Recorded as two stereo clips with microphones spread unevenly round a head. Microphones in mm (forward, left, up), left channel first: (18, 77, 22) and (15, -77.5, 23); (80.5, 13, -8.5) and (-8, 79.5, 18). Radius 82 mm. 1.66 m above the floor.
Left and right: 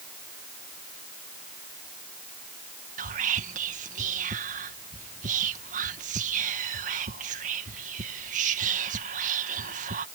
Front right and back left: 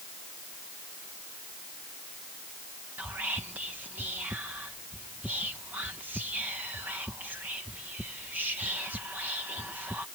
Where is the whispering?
135° right.